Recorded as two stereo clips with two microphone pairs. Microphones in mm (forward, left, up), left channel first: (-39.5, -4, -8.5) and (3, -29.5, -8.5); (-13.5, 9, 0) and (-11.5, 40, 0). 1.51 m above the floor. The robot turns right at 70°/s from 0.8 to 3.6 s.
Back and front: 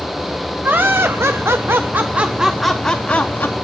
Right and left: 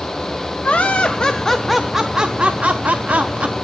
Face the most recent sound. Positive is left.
turn(degrees=125)